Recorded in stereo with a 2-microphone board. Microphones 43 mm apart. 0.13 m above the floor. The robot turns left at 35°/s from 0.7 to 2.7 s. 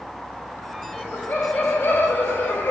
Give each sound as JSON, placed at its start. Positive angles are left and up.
{"t": 1.0, "sound": "laughter", "azimuth_deg": 135, "distance_m": 4.5}